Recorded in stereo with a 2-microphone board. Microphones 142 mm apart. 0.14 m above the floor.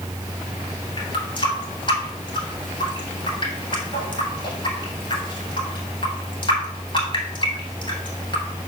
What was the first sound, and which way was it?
A running tap, 35° left (ahead or behind).